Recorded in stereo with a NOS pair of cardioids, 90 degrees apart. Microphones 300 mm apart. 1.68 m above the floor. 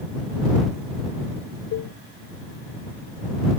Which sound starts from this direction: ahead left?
A cowbell, at 1.7 s.